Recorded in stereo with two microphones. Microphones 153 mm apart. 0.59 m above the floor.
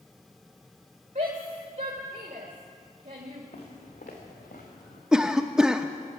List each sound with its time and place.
1.1 s a shout: 55° right (ahead or behind), 1.8 m
3.5 s footsteps: 70° left (ahead or behind), 4 m; by 5.0 s 75° left (ahead or behind), 4 m
5.1 s a cough: 5° right (ahead or behind), 0.6 m